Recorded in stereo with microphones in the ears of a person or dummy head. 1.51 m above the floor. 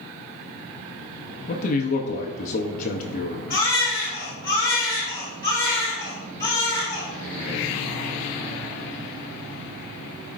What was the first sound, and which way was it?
A man speaking, 45° left (ahead or behind).